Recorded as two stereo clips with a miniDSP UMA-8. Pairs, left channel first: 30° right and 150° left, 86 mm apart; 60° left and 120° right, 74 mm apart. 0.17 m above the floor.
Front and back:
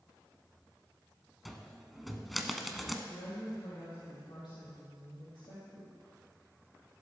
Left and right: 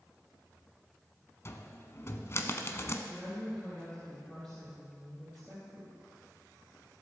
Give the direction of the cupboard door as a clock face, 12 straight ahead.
10 o'clock.